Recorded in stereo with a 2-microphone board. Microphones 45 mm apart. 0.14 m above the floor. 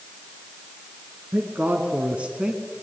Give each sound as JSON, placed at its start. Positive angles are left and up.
{"t": 1.3, "sound": "a man speaking", "side_deg": -45, "distance_m": 2.0}